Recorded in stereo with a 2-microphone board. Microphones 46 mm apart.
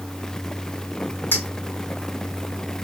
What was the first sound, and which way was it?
A clink, 45° left (ahead or behind).